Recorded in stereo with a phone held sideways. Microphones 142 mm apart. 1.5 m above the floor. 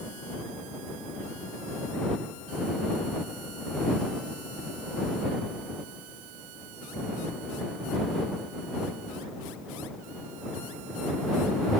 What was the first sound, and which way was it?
Only background noise.